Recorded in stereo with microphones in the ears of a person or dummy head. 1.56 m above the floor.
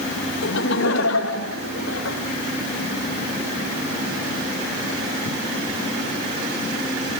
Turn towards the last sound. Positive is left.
turn(degrees=85)